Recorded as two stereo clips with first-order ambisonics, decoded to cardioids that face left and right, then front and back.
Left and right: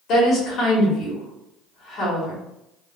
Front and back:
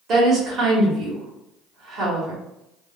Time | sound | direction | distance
0.1 | a woman speaking | 130° left | 1.4 m